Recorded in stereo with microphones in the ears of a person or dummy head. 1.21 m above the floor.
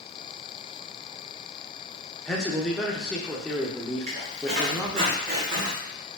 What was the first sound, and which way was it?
A man speaking, centre (ahead or behind).